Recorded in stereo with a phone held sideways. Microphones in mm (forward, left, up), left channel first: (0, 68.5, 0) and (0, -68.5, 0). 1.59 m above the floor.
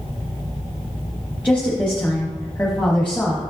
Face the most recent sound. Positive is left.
turn(degrees=10)  # may be behind; listen again after turning